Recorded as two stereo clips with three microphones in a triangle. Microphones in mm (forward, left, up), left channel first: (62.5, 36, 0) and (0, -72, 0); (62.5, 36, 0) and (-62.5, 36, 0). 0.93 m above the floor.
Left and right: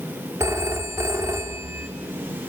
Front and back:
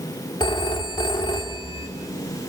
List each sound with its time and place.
0.4 s a phone ringing: 50° right, 1.8 m